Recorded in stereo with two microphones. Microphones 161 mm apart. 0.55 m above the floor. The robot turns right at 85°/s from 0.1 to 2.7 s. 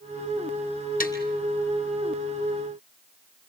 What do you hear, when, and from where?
1.0 s tapping: 60° left (ahead or behind), 3 m; by 1.1 s 75° left (ahead or behind), 3 m